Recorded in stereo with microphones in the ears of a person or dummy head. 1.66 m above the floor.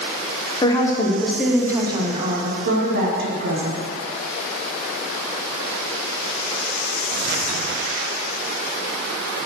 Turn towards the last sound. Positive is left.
turn(degrees=-70)  # may be behind; listen again after turning